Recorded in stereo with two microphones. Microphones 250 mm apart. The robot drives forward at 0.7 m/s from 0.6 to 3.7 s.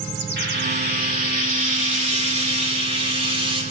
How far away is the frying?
About 2 m.